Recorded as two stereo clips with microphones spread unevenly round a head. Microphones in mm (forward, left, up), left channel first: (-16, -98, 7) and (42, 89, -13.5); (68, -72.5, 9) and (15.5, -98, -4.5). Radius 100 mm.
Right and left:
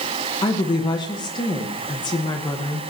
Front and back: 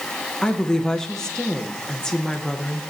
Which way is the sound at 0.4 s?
45° right.